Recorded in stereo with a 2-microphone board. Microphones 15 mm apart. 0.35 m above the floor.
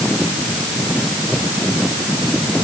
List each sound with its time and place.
Only background noise.